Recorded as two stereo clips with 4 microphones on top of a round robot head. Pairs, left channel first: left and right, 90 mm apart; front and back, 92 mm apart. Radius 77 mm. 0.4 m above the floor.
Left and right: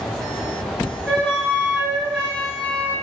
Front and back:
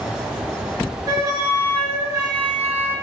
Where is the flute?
165° left, 1.4 m.